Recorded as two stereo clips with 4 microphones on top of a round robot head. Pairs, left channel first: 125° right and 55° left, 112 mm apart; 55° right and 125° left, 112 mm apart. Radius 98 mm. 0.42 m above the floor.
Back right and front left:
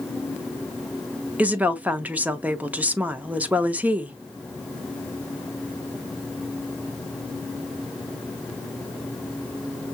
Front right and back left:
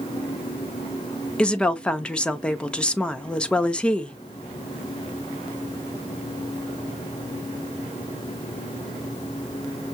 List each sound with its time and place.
1.4 s a woman speaking: 5° left, 0.8 m